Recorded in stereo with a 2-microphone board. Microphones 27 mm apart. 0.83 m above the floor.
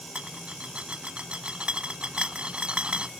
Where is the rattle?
45° right (ahead or behind).